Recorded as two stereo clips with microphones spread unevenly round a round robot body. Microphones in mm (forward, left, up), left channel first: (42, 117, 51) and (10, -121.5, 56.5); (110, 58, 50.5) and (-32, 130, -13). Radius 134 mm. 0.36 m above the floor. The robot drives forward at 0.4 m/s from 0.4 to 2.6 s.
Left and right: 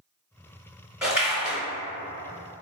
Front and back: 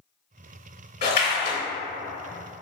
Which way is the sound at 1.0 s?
10° right.